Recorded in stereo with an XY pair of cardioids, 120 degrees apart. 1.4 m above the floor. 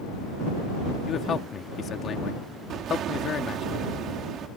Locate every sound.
1.1 s a man speaking: 45° left
2.7 s an explosion: 60° right